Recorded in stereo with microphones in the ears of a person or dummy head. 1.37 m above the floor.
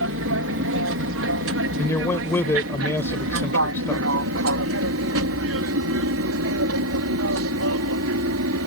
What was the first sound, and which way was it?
An aircraft, 60° right (ahead or behind).